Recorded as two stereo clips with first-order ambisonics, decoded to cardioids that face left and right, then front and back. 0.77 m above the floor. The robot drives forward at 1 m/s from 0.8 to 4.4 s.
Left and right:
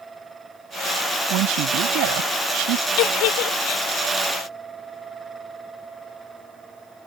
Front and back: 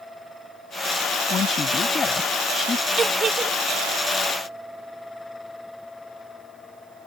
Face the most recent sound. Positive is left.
turn(degrees=120)